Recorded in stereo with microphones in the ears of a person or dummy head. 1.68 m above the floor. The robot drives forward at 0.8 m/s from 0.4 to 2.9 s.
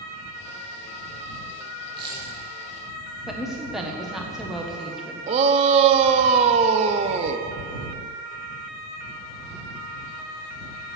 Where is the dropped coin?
30° right (ahead or behind), 3 m.